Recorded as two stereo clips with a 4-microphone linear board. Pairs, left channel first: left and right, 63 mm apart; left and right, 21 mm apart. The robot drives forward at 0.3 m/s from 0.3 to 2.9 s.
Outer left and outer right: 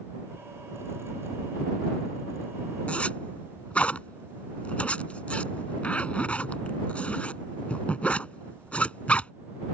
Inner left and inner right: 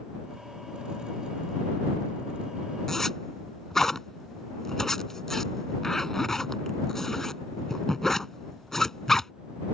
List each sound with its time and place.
2.9 s a zipper: 20° left (ahead or behind)